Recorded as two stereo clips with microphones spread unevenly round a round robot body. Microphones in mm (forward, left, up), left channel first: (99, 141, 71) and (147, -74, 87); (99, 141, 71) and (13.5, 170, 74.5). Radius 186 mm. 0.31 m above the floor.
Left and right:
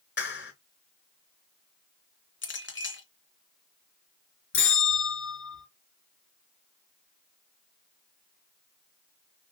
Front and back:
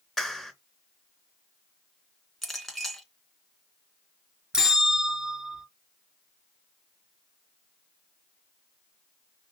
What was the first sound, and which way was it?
A clap, 70° left.